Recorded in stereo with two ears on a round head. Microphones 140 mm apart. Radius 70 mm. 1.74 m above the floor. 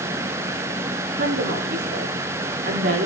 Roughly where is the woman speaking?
Right.